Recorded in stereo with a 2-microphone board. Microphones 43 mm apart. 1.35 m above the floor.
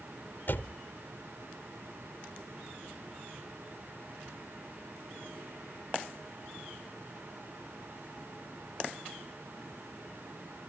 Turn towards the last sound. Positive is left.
turn(degrees=55)  # may be behind; listen again after turning